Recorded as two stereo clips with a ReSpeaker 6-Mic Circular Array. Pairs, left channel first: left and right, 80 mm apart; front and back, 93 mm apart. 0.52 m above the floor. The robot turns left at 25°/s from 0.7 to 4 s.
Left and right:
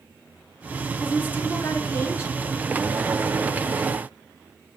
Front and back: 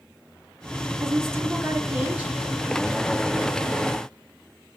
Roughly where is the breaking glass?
No breaking glass in this recording.